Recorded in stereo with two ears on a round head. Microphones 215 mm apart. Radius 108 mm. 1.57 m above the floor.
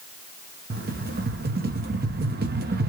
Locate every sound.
0.7 s a rattle: 40° right (ahead or behind), 0.9 m